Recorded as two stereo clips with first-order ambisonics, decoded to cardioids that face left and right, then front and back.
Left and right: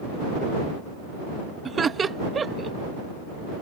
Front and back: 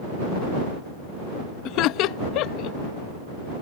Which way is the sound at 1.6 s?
20° right.